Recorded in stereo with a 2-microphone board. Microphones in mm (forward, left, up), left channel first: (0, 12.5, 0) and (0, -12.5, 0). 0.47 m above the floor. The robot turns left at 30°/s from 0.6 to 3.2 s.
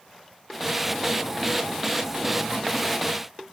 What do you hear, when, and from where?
Only background noise.